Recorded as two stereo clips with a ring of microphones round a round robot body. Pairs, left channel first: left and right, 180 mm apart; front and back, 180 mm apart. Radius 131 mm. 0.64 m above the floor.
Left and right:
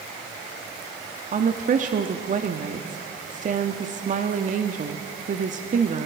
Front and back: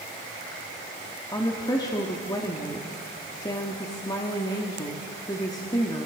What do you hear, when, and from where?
1.3 s a woman speaking: 65° right, 1.2 m